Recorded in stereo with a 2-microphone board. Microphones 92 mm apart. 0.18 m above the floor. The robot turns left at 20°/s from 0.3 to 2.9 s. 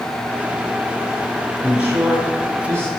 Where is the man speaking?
10° right (ahead or behind), 3 m; by 2.9 s 30° right (ahead or behind), 3 m.